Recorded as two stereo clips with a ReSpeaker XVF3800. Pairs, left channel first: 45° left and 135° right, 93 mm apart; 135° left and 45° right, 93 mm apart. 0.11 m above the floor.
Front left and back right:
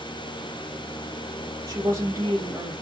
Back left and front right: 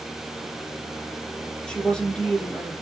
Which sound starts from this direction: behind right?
A woman speaking, at 1.7 s.